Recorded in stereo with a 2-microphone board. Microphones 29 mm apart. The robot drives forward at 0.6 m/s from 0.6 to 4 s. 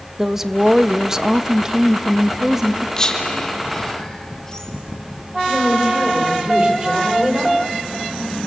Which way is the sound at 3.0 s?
25° left (ahead or behind).